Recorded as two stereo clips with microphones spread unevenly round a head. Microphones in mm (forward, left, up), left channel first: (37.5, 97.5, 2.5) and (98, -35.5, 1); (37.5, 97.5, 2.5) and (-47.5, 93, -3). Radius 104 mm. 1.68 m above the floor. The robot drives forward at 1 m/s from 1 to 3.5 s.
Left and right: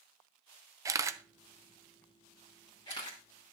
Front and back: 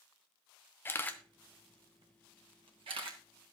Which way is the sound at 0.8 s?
20° right.